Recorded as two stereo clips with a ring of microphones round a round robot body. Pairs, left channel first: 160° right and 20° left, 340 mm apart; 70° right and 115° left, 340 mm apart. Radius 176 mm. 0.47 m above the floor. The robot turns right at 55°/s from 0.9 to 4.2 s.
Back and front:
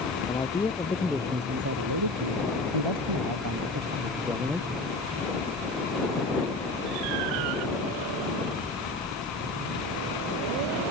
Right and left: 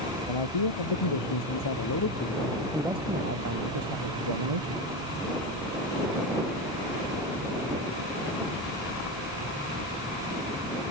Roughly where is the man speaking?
Right.